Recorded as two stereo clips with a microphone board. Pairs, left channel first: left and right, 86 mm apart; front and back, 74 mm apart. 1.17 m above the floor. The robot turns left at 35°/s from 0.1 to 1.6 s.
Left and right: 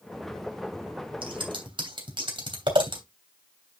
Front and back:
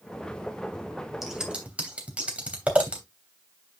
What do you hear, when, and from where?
1.2 s scissors: 95° right, 3 m; by 3.0 s 110° right, 3 m